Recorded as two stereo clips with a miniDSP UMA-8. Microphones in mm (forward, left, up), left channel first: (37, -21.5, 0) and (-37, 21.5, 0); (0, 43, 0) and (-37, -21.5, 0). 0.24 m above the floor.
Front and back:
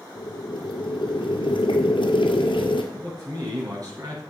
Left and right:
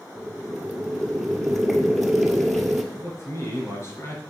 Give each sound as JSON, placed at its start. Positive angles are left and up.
{"t": 0.1, "sound": "boiling", "azimuth_deg": -30, "distance_m": 1.5}
{"t": 2.9, "sound": "a man speaking", "azimuth_deg": 105, "distance_m": 4.0}